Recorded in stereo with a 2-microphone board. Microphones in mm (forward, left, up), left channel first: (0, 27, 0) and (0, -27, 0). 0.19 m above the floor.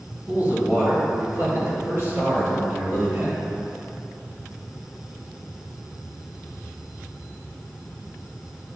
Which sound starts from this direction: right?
A man speaking, at 0.3 s.